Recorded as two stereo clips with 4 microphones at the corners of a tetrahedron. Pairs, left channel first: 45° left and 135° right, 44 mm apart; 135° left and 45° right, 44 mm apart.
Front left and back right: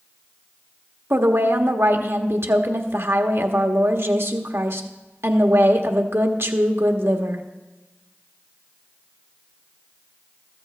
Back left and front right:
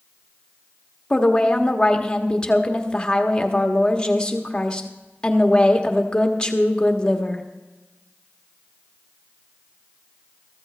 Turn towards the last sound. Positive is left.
turn(degrees=-155)